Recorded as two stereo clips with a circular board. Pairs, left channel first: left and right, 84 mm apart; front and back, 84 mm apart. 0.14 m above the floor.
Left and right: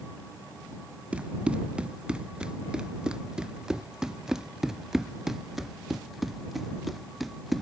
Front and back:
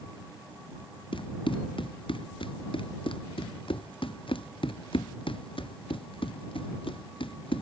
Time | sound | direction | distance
1.1 | running footsteps | 15° right | ?